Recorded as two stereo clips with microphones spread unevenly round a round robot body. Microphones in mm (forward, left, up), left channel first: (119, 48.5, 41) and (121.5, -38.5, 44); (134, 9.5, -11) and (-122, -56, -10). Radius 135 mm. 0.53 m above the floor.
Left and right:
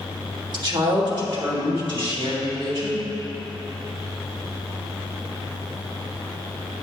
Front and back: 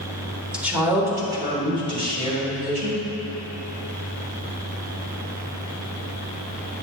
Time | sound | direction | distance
0.5 | a woman speaking | 80° right | 1.4 m